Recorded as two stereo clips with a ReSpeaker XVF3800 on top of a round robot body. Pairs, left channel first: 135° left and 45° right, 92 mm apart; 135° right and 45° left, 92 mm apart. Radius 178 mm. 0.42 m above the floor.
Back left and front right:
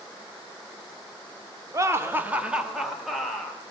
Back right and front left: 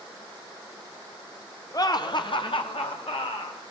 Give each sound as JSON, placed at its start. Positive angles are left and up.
{"t": 1.7, "sound": "laughter", "azimuth_deg": -95, "distance_m": 2.0}